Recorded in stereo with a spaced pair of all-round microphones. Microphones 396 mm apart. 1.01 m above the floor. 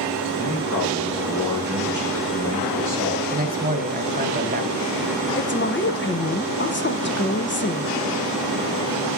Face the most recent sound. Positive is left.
turn(degrees=30)  # may be behind; listen again after turning